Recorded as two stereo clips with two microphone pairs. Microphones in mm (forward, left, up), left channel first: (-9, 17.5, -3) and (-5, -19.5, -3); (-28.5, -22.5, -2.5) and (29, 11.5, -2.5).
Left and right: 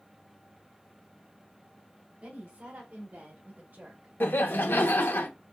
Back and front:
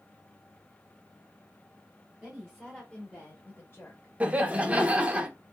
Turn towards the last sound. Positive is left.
turn(degrees=100)